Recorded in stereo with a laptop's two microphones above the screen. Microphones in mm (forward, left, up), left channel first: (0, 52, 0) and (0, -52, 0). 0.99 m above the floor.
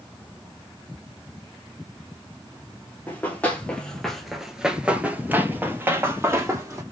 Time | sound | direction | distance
3.1 | running footsteps | 15° left (ahead or behind) | 1.2 m